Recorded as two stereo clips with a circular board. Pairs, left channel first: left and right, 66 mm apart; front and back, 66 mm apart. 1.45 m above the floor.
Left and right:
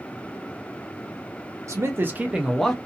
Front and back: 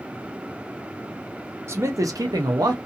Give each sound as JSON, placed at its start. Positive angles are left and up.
{"t": 1.7, "sound": "a man speaking", "azimuth_deg": -130, "distance_m": 0.8}